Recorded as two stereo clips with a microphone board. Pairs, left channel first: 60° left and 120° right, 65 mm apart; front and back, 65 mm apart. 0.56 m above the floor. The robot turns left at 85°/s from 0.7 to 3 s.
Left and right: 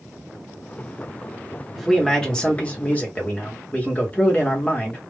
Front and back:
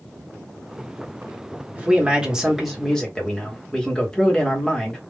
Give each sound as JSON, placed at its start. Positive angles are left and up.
{"t": 1.8, "sound": "a man speaking", "azimuth_deg": 165, "distance_m": 1.0}